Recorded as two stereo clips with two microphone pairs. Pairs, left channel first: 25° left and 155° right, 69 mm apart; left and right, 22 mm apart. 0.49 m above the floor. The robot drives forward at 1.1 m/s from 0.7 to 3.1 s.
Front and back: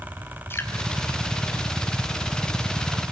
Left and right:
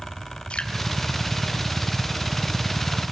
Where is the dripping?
75° left, 2.5 m.